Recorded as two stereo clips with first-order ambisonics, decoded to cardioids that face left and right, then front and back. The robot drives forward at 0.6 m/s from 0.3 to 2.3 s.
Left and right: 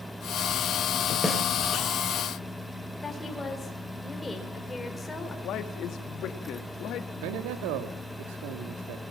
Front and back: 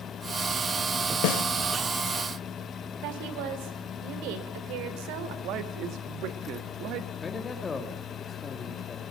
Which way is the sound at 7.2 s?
75° right.